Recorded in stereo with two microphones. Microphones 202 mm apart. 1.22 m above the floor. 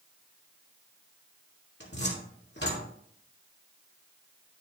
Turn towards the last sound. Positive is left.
turn(degrees=60)  # may be behind; listen again after turning